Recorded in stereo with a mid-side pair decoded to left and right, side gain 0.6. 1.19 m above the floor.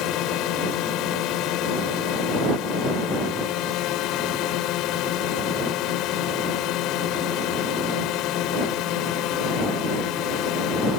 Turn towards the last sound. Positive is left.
turn(degrees=65)